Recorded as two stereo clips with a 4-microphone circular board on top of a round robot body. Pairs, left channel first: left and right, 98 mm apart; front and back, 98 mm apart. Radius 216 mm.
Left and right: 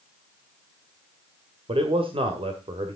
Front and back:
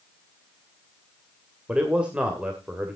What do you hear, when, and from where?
1.7 s a man speaking: 100° right, 2 m